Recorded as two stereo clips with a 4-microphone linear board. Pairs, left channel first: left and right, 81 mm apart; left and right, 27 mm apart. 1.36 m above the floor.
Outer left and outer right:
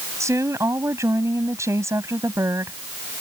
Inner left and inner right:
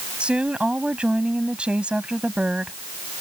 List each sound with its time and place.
0.2 s a woman speaking: 35° right (ahead or behind)